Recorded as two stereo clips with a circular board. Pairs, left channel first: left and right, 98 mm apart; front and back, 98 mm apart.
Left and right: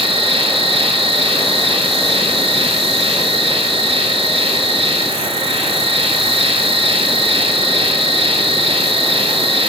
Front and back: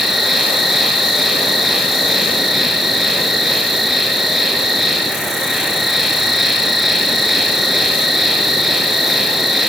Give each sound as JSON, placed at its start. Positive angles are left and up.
{"t": 0.0, "sound": "an insect", "azimuth_deg": -95, "distance_m": 0.9}